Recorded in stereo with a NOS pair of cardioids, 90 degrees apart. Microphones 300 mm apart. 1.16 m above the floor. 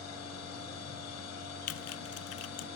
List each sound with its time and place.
0.0 s a machine running: 60° left, 6 m
1.7 s typing on a keyboard: 55° left, 0.6 m